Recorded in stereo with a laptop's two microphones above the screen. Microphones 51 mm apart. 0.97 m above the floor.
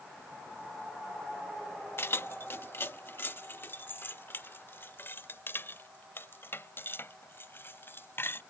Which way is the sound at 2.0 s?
50° left (ahead or behind).